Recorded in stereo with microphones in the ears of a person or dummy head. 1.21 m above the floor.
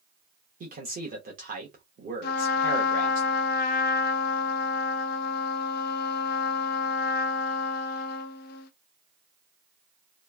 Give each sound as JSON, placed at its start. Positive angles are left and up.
{"t": 0.6, "sound": "a man speaking", "side_deg": -40, "distance_m": 0.9}
{"t": 2.2, "sound": "a trumpet", "side_deg": 55, "distance_m": 0.5}